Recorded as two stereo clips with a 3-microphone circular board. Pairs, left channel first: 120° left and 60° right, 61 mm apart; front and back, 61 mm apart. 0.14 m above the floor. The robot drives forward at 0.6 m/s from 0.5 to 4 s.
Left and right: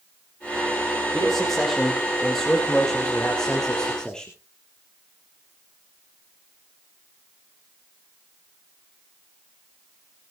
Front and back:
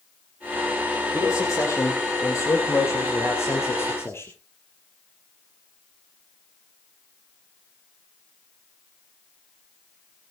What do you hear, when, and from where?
1.1 s a man speaking: 25° left, 5 m; by 4.3 s 40° left, 3.5 m